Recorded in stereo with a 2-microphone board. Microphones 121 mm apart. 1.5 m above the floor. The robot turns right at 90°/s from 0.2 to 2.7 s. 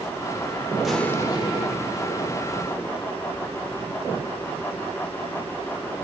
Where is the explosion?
5° right, 1.8 m; by 3.1 s 160° left, 1.8 m.